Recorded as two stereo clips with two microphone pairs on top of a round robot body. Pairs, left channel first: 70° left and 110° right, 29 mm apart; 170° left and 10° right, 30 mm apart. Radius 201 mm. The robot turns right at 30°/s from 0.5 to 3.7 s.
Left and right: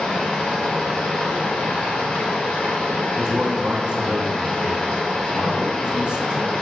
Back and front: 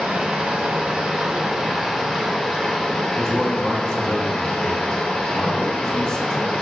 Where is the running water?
25° left, 1.4 m; by 6.6 s 120° left, 1.4 m.